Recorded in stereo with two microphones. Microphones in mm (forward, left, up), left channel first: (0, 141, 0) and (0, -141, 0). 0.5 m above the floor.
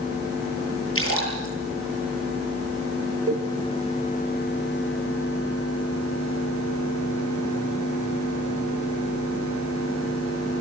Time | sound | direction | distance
0.9 | a splash | 50° left (ahead or behind) | 9.5 m
3.3 | a cowbell | 55° right (ahead or behind) | 3 m